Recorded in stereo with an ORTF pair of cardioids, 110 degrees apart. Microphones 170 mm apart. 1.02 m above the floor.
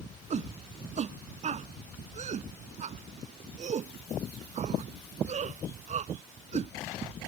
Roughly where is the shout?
Ahead right.